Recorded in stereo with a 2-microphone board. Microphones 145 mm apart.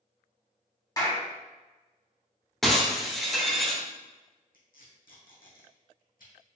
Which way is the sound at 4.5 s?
85° left.